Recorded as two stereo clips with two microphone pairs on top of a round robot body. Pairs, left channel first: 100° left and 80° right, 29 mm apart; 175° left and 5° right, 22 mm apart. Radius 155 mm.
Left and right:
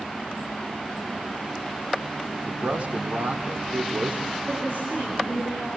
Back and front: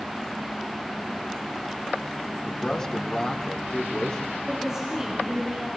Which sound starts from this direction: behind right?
A man speaking, at 2.4 s.